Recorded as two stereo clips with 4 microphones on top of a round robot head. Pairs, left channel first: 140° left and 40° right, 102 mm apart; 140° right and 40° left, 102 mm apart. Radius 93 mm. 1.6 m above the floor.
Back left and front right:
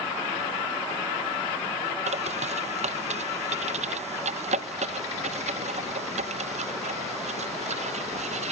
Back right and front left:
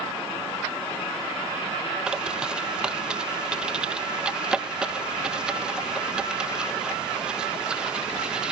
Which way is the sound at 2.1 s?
40° right.